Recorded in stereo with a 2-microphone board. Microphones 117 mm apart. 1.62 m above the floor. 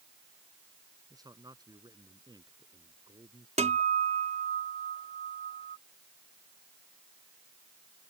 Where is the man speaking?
35° right (ahead or behind); by 3.5 s 40° right (ahead or behind).